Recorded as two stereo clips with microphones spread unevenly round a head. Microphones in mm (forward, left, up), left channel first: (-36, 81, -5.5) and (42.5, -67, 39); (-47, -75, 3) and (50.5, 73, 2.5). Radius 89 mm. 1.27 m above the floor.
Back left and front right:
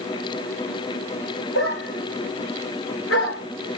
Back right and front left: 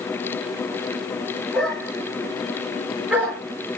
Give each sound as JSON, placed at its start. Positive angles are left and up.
{"t": 1.5, "sound": "a dog barking", "azimuth_deg": 145, "distance_m": 6.0}